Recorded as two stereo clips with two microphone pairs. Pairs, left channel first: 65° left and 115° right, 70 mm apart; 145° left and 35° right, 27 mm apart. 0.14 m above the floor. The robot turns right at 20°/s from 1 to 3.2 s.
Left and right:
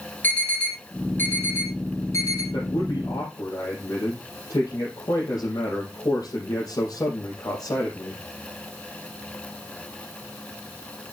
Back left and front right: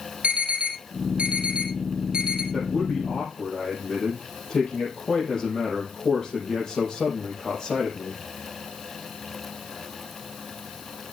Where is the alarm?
Straight ahead, 4.5 m; by 2.4 s 30° left, 4.5 m.